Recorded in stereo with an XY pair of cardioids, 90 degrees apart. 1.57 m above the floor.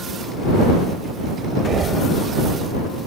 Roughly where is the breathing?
Ahead right.